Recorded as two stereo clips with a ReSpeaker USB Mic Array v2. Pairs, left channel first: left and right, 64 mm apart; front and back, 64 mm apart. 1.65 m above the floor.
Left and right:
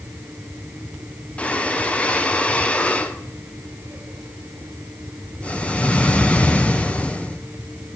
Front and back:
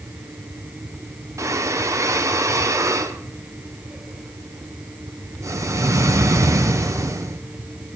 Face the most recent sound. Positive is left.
turn(degrees=160)